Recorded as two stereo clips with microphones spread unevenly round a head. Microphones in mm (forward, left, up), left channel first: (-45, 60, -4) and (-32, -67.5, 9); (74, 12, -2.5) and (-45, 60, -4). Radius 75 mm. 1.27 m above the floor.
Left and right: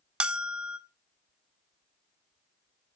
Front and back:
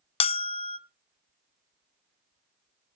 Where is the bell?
10° right, 0.6 m.